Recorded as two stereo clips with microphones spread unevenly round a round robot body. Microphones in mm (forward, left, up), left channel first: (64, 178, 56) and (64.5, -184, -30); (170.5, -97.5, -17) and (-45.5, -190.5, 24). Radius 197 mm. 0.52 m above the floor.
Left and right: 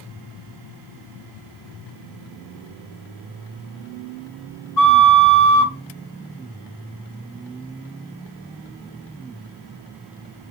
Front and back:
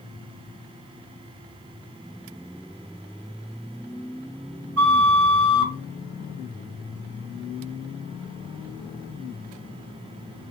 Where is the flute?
170° left, 1.9 m.